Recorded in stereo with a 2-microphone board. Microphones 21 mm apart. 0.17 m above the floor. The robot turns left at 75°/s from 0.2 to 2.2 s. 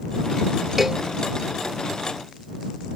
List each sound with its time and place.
0.8 s a cowbell: 5° right (ahead or behind); by 1.0 s 25° right (ahead or behind)